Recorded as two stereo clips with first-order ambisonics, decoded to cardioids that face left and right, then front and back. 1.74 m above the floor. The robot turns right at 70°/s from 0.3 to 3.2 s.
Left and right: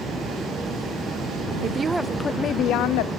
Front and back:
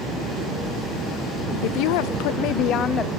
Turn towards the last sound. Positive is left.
turn(degrees=80)